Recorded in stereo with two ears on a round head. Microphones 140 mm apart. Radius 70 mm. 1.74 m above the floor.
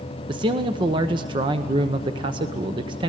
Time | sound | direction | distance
0.3 | a man speaking | 30° right (ahead or behind) | 1.0 m